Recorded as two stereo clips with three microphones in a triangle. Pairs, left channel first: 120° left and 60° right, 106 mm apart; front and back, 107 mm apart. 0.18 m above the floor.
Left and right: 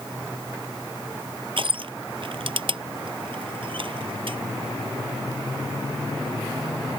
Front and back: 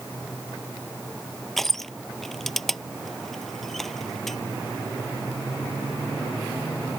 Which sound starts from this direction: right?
Crushing, at 1.6 s.